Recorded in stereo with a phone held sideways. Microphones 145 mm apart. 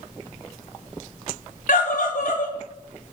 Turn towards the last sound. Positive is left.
turn(degrees=65)  # may be behind; listen again after turning